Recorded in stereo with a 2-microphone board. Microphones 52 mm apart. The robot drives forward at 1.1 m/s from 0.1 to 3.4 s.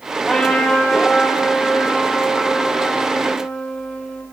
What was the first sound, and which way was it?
A trumpet, 20° left (ahead or behind).